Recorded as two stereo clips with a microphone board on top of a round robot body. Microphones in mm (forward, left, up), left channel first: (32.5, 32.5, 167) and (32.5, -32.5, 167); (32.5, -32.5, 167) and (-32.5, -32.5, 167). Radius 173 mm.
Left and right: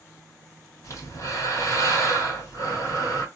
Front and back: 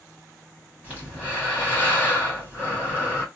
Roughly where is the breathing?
Behind left.